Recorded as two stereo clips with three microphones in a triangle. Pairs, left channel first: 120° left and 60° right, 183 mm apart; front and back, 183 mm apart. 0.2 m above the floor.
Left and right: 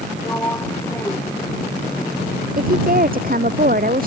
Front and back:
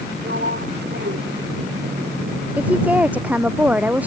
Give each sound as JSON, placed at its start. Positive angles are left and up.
{"t": 0.2, "sound": "a sliding door", "azimuth_deg": -165}
{"t": 2.6, "sound": "a woman speaking", "azimuth_deg": -100}